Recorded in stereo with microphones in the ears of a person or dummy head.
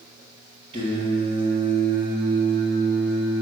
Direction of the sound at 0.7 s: 25° right (ahead or behind).